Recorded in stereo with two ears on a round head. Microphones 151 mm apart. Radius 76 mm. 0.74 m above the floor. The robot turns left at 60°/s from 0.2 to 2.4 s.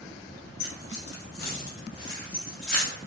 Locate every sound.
0.6 s keys jangling: 60° left (ahead or behind), 0.9 m; by 2.9 s 5° left (ahead or behind), 0.9 m